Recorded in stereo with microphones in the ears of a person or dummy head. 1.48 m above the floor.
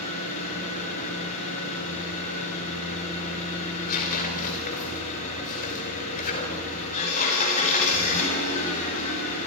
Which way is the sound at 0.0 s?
40° left (ahead or behind).